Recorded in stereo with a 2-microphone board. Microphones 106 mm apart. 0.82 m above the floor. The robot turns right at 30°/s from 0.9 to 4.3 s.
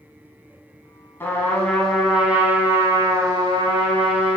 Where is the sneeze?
I don't hear a sneeze.